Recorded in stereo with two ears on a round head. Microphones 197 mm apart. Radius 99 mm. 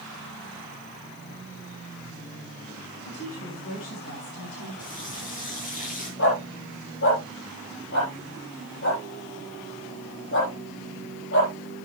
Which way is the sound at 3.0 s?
70° left (ahead or behind).